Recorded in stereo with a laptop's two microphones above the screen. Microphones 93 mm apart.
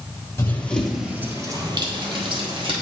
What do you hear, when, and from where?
0.4 s running footsteps: 25° left (ahead or behind), 1.3 m; by 2.7 s 65° right (ahead or behind), 2.5 m